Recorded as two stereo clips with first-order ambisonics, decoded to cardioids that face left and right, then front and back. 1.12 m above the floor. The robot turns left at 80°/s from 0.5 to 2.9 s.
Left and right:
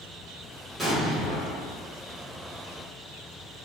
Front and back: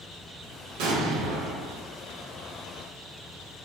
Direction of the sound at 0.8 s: 175° right.